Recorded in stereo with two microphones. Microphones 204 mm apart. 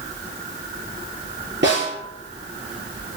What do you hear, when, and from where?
1.6 s a snare drum: 65° right (ahead or behind), 3 m